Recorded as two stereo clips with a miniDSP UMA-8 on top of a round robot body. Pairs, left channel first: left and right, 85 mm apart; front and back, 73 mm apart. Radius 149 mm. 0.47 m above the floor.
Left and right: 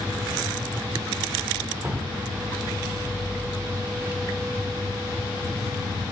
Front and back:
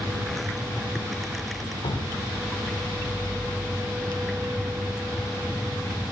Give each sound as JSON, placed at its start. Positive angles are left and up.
{"t": 1.8, "sound": "dripping", "azimuth_deg": -10, "distance_m": 0.7}